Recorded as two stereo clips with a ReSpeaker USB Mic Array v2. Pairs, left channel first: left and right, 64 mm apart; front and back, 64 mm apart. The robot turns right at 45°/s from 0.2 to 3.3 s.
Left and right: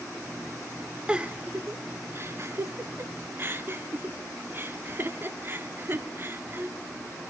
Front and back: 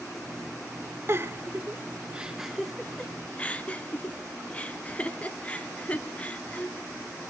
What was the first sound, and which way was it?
A giggle, 160° right.